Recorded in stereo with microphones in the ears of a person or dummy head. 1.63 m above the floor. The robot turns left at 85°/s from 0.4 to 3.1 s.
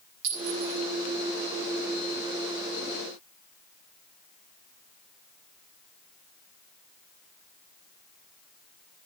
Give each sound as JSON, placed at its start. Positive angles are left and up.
{"t": 0.2, "sound": "a clink", "side_deg": -75, "distance_m": 4.0}